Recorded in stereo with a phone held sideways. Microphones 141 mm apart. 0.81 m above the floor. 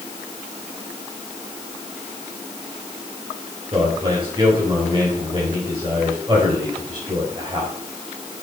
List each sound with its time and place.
3.7 s a man speaking: 35° right (ahead or behind), 5 m